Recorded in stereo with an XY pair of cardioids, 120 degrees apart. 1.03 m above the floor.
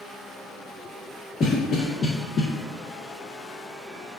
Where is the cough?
40° left, 0.6 m.